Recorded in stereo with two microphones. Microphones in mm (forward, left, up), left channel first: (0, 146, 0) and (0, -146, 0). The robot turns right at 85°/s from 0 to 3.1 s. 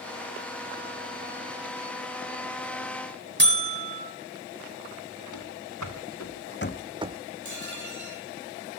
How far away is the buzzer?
About 1.3 m.